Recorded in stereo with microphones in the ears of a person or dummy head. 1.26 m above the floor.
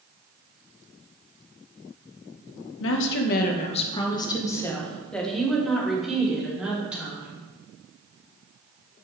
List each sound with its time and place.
2.8 s a woman speaking: 70° left (ahead or behind), 0.9 m; by 7.4 s 10° right (ahead or behind), 3 m